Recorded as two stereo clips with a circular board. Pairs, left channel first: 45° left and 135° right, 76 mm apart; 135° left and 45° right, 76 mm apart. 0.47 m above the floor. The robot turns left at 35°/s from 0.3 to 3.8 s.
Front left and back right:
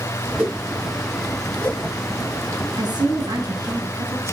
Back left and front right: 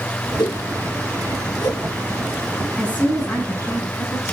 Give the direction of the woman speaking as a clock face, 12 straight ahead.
5 o'clock.